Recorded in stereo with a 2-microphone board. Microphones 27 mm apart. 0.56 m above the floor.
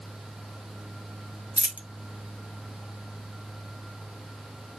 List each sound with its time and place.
1.6 s a dropped coin: 65° right (ahead or behind), 0.6 m